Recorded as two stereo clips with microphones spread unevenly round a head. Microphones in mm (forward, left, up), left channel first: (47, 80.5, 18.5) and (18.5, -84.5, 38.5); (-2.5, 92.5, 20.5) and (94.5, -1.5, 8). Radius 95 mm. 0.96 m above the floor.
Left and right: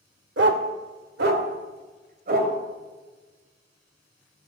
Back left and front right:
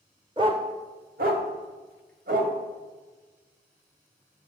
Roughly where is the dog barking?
Right.